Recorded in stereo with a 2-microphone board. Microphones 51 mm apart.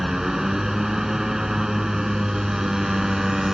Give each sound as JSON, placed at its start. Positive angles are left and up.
{"t": 0.0, "sound": "a motorcycle", "side_deg": -10}